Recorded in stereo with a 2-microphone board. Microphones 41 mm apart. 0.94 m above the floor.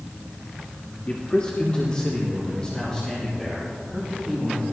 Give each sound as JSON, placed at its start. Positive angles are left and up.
{"t": 1.1, "sound": "a man speaking", "side_deg": 30, "distance_m": 1.6}